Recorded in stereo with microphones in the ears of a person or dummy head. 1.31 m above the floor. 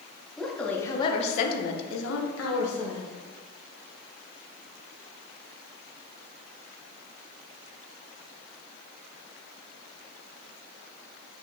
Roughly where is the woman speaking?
Centre.